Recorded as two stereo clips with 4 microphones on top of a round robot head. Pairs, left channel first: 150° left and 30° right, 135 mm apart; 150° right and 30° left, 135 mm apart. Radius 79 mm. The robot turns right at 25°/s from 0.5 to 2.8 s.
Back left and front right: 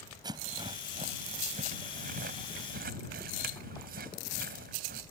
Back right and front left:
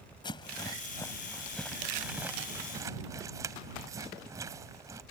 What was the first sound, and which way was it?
A rattle, 90° right.